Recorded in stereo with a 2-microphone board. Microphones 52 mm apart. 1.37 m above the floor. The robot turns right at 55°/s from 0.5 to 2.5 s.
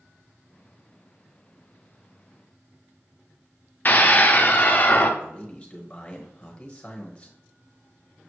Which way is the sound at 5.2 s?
20° left (ahead or behind).